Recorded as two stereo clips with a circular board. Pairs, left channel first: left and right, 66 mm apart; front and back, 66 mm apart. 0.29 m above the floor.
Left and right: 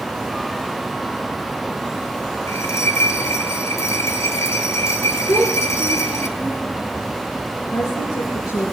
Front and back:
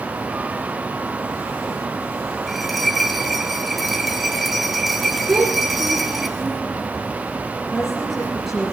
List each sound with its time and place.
2.5 s a bell: 90° left, 1.7 m
5.3 s a child speaking: 120° left, 4 m
7.7 s a woman speaking: 90° left, 5 m